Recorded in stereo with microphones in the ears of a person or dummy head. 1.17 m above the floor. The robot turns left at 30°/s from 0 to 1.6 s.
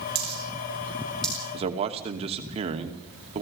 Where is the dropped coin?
30° right (ahead or behind), 9 m; by 1.4 s 5° left (ahead or behind), 9 m.